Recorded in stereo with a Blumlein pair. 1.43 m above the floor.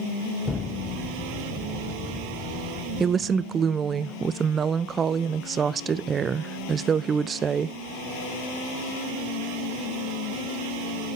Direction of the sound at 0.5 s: 10° left.